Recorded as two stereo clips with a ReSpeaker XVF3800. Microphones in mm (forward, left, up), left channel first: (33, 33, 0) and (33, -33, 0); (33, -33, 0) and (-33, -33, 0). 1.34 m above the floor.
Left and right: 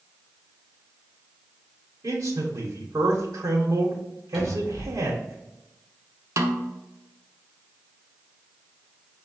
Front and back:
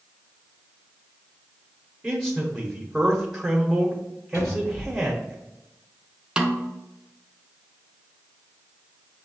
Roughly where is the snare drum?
Right.